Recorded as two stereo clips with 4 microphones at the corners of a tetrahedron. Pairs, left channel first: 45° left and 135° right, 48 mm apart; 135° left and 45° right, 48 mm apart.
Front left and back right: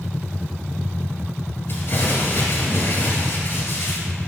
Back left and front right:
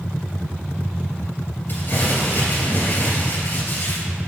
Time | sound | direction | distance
1.7 | crumpling | 85° left | 2.5 m